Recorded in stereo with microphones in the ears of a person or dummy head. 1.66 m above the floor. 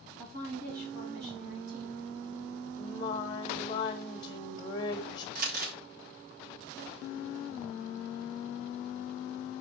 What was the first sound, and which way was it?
A woman speaking, 65° right (ahead or behind).